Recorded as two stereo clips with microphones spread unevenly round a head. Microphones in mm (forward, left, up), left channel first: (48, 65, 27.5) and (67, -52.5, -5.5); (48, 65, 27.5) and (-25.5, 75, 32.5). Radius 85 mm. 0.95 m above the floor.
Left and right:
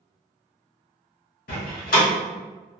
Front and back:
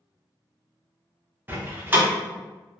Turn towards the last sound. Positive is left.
turn(degrees=110)